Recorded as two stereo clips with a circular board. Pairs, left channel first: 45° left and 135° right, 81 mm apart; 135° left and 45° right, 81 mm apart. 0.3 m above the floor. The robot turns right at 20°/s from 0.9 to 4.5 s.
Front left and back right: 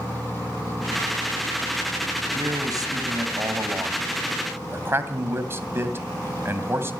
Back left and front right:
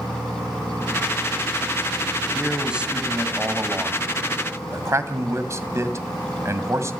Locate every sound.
2.4 s a man speaking: 130° right, 2 m; by 6.9 s 85° right, 2 m